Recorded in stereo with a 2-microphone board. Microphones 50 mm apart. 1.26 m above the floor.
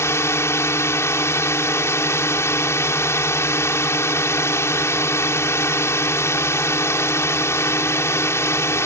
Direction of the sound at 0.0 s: 70° left (ahead or behind).